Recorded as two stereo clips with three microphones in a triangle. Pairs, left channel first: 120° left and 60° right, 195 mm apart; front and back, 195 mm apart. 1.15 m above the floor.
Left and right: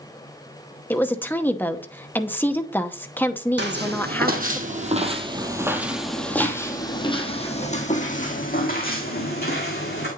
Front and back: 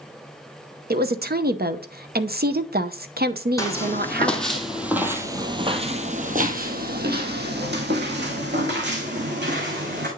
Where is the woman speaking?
165° right, 0.7 m.